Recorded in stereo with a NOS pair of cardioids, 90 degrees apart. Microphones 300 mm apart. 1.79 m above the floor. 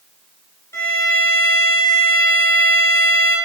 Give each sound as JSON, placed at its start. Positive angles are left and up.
{"t": 0.7, "sound": "a violin", "azimuth_deg": 10, "distance_m": 0.9}